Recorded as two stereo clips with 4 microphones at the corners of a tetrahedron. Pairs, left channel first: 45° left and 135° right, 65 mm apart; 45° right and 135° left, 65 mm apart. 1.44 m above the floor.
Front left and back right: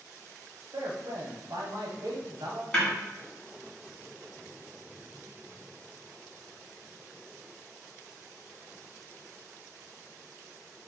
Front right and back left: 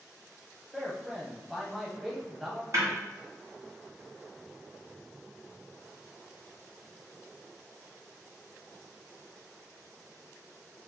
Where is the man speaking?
140° right, 1.1 m.